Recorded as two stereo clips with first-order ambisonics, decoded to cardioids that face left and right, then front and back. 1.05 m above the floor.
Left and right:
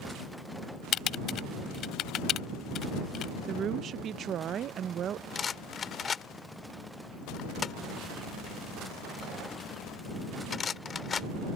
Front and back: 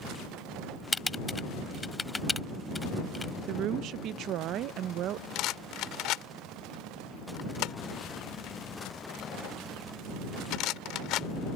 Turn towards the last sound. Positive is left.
turn(degrees=25)